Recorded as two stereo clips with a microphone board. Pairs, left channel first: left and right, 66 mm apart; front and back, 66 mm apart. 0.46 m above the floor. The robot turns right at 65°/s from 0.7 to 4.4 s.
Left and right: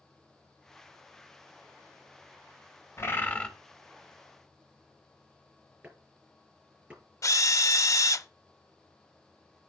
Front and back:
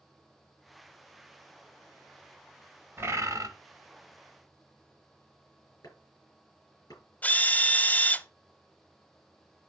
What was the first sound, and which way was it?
A bird, 130° left.